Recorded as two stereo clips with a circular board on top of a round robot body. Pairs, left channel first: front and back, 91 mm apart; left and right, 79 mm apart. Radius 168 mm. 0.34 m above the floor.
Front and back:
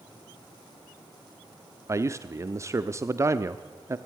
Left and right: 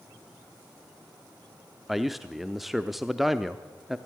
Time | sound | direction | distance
1.9 | a man speaking | 175° right | 1.0 m